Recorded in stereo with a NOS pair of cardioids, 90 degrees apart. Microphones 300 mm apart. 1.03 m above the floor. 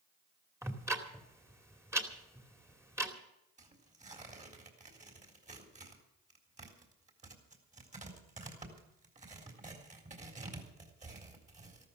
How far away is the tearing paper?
About 3.5 m.